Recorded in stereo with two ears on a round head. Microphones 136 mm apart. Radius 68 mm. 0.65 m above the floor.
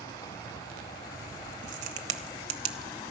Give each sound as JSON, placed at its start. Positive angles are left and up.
{"t": 1.6, "sound": "a crack", "side_deg": -50, "distance_m": 1.2}